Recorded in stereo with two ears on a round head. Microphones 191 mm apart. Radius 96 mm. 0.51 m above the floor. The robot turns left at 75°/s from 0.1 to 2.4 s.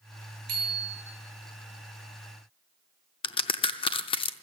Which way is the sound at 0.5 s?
85° right.